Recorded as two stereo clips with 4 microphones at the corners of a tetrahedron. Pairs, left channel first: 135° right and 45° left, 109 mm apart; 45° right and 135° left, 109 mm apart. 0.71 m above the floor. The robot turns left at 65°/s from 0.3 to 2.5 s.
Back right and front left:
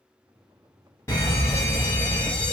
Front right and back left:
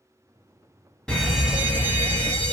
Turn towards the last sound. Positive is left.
turn(degrees=145)